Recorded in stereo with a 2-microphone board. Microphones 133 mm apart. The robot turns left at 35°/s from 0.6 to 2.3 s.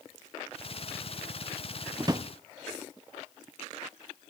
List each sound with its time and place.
2.0 s a drawer: 30° right (ahead or behind), 0.6 m